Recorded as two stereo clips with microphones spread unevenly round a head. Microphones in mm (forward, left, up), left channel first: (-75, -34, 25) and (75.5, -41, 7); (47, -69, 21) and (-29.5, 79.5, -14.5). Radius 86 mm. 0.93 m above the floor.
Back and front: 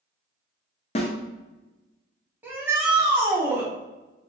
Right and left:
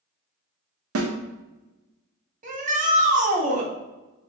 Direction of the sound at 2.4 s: 75° left.